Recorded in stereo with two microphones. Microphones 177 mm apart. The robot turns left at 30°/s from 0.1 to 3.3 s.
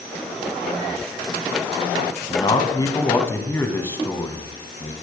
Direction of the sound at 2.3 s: 55° left.